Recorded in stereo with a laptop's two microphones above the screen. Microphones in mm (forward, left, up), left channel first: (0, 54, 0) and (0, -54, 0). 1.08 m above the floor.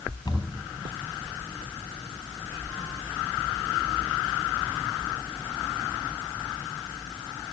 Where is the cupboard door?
45° left (ahead or behind), 4.5 m.